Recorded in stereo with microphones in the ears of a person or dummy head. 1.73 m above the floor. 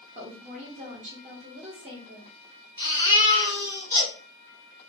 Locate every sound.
0.1 s a woman speaking: 30° right (ahead or behind), 0.9 m
2.8 s a baby crying: 15° right (ahead or behind), 0.7 m